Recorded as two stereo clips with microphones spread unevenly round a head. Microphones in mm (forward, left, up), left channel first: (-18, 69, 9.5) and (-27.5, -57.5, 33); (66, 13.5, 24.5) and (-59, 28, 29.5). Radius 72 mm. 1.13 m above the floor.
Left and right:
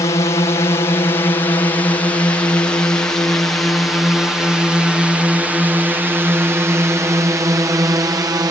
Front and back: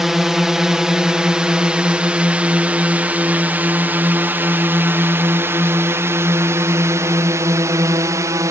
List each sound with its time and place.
0.0 s a drone: 85° left; by 8.5 s 140° right